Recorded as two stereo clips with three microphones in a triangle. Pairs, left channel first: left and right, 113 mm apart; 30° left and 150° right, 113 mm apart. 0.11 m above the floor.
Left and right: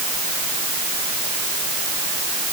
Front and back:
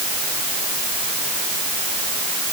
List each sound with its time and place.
Only background noise.